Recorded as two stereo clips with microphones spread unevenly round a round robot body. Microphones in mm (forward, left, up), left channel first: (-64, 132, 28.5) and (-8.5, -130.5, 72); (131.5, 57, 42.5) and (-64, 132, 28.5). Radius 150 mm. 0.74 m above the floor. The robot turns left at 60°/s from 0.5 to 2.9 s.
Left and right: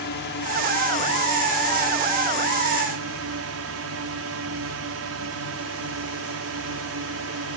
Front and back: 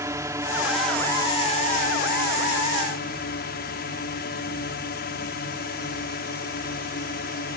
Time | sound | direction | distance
0.0 | a drone | 90° left | ?